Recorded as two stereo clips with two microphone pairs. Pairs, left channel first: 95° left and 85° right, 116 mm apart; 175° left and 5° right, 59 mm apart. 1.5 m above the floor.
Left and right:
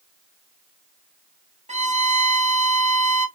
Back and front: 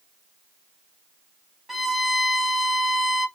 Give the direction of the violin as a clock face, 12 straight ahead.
3 o'clock.